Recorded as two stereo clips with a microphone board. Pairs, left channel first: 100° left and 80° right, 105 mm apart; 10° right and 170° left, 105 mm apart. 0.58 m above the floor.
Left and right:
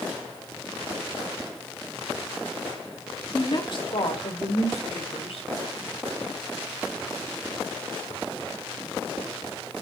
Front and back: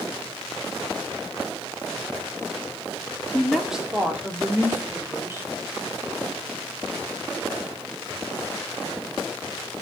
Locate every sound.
3.3 s a woman speaking: 70° left, 1.4 m; by 5.5 s 105° left, 3.5 m